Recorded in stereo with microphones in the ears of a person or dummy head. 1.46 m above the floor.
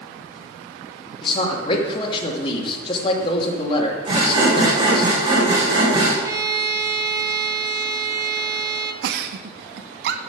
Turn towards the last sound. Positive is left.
turn(degrees=-60)  # may be behind; listen again after turning